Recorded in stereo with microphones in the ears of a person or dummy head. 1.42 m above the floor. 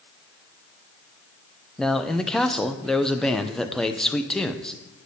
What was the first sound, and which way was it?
A man speaking, centre (ahead or behind).